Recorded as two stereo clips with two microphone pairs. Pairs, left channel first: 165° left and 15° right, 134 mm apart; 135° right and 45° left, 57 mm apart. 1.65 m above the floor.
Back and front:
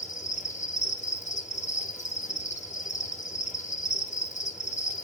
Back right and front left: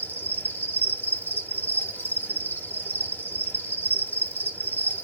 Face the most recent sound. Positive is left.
turn(degrees=180)